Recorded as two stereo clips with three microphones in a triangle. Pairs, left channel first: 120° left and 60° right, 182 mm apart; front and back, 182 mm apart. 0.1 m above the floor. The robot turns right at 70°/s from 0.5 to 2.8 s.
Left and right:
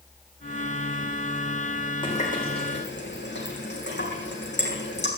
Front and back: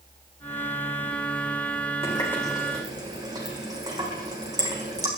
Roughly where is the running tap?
Ahead left.